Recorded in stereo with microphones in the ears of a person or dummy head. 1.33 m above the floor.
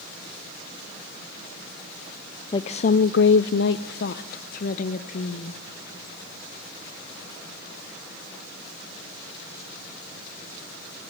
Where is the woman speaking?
25° left (ahead or behind), 0.6 m; by 5.6 s 50° left (ahead or behind), 1.8 m.